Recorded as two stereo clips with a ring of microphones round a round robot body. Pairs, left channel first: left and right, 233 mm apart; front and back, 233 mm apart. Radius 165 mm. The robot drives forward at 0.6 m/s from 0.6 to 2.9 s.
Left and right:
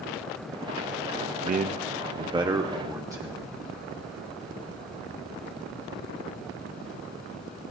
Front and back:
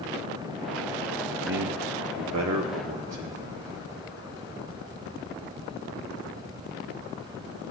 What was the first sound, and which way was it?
A man speaking, 140° right.